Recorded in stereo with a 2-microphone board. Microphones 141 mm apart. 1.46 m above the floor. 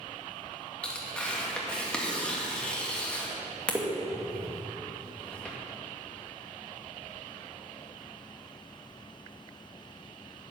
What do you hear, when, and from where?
0.8 s tearing paper: 10° left (ahead or behind), 1.9 m